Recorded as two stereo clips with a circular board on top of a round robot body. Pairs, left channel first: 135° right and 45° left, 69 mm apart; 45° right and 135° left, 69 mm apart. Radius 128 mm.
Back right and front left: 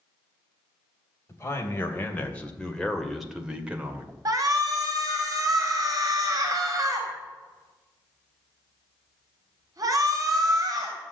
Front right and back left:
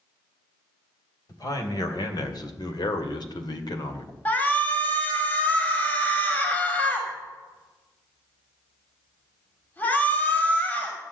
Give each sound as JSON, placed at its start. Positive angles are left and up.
{"t": 1.3, "sound": "a man speaking", "azimuth_deg": -80, "distance_m": 3.0}
{"t": 4.2, "sound": "a shout", "azimuth_deg": 20, "distance_m": 2.5}